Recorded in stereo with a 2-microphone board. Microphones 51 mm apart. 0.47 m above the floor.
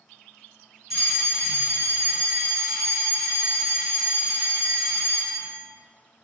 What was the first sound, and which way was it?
A fire alarm, 5° right (ahead or behind).